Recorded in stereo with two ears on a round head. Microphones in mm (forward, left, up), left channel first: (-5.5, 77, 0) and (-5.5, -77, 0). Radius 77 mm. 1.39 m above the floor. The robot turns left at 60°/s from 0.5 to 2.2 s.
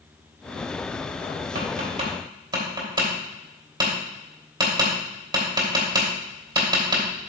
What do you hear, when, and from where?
1.6 s tapping: 60° right (ahead or behind), 3 m; by 7.1 s 25° right (ahead or behind), 3 m